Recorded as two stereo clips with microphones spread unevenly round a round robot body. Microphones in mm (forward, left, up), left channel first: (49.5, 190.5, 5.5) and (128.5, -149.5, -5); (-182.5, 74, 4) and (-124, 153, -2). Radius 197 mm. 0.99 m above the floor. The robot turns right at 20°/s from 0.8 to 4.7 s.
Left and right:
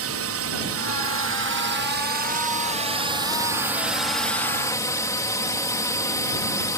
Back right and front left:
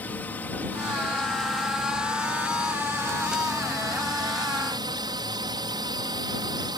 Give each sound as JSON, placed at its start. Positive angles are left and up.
{"t": 0.0, "sound": "a drone", "azimuth_deg": -55}